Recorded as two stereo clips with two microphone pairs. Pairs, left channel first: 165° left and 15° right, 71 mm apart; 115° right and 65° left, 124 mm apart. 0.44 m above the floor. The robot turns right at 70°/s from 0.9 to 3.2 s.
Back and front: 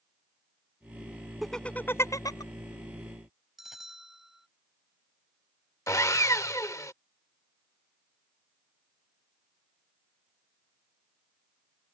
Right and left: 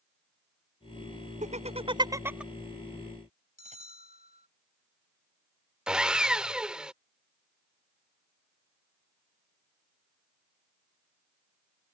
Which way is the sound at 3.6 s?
70° left.